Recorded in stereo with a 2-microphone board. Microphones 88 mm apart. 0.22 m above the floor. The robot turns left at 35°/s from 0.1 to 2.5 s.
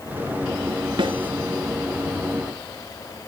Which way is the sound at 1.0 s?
75° right (ahead or behind).